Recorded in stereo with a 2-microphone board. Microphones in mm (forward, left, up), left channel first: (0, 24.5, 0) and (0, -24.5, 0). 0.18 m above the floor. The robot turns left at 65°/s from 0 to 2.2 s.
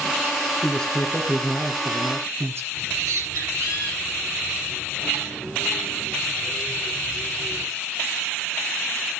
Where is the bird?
80° right, 9.5 m.